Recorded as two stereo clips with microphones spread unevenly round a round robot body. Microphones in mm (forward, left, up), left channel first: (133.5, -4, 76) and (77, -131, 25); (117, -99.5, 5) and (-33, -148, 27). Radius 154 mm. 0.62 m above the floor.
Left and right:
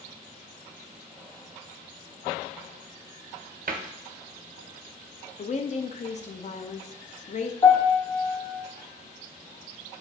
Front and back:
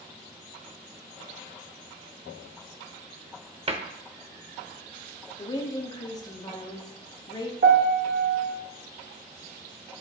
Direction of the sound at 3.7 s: 105° right.